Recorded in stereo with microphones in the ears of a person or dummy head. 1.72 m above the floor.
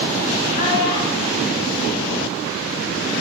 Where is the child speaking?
50° left (ahead or behind), 3.5 m; by 2.9 s 65° left (ahead or behind), 4.5 m.